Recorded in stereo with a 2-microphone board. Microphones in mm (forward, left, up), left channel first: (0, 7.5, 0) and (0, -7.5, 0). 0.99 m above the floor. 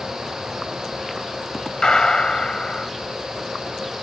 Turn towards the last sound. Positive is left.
turn(degrees=50)  # may be behind; listen again after turning